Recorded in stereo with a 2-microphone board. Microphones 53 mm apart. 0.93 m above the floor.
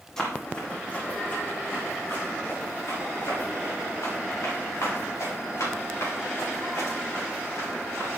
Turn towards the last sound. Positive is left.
turn(degrees=75)  # may be behind; listen again after turning